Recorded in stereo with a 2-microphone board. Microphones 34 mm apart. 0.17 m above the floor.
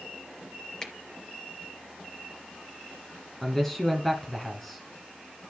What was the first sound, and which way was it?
A finger snap, 15° left (ahead or behind).